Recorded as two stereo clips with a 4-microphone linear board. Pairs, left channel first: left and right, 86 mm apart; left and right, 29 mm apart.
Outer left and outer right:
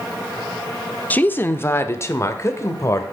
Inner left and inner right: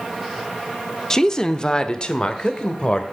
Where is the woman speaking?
20° left (ahead or behind), 0.7 m; by 3.0 s 35° left (ahead or behind), 1.6 m.